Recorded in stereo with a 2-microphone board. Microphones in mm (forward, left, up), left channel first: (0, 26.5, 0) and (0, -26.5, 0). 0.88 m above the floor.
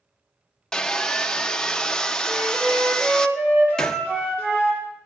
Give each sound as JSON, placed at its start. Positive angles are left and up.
{"t": 0.7, "sound": "sawing", "side_deg": 10, "distance_m": 0.7}
{"t": 2.3, "sound": "a flute", "side_deg": -35, "distance_m": 4.5}
{"t": 3.8, "sound": "a gunshot", "side_deg": 10, "distance_m": 0.7}